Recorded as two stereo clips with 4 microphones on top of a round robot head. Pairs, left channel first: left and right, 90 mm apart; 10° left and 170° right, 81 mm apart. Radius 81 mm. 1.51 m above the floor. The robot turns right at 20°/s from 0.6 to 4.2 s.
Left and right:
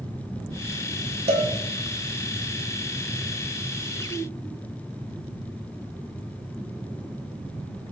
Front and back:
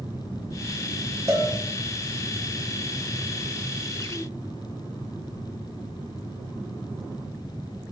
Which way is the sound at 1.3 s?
105° right.